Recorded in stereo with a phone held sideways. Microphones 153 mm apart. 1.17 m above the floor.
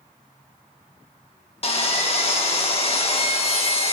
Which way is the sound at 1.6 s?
45° left (ahead or behind).